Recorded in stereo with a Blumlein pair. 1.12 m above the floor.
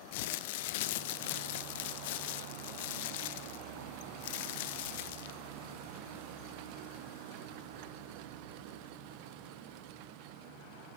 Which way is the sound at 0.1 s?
50° left.